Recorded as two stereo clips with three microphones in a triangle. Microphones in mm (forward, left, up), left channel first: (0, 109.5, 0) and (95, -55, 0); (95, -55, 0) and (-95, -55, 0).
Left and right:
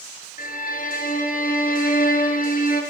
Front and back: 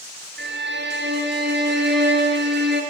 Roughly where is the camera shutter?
No camera shutter in this recording.